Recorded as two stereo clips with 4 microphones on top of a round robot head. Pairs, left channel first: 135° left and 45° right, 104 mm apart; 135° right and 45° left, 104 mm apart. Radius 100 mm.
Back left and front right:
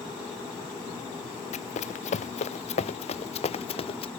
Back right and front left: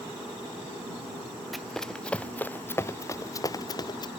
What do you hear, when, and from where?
1.5 s running footsteps: 135° left; by 4.1 s 175° left